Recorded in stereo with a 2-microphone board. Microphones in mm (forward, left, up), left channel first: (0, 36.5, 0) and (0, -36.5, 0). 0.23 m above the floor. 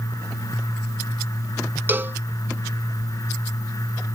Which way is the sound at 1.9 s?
30° right (ahead or behind).